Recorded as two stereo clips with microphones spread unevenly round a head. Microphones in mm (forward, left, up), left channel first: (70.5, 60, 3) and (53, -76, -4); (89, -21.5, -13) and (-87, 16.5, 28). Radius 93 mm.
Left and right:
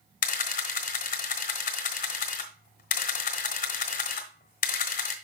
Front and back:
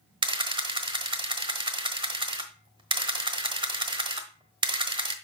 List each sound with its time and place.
0.2 s a camera shutter: 110° left, 1.2 m